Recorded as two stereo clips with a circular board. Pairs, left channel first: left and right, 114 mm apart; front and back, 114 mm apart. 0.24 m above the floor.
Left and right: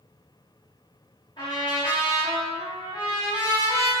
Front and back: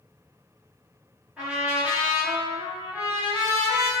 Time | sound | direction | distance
1.4 | a trumpet | 105° left | 1.0 m